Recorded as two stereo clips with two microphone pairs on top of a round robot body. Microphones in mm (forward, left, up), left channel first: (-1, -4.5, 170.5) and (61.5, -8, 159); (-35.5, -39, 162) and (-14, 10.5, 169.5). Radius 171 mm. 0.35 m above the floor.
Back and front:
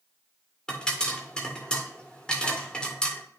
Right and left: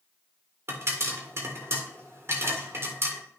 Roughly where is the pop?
Left.